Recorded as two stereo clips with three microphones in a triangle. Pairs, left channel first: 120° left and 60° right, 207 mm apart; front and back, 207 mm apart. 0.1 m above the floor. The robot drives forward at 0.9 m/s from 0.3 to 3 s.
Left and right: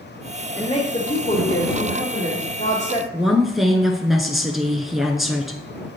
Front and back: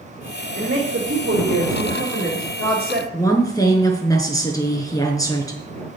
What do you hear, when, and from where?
0.6 s a woman speaking: 175° left, 2.5 m
3.1 s a woman speaking: 25° left, 1.1 m